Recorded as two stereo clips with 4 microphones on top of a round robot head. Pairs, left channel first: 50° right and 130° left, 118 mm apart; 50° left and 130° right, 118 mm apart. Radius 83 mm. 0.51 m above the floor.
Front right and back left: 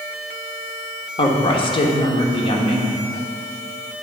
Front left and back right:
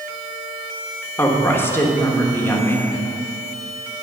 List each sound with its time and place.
1.2 s a woman speaking: 20° right, 1.2 m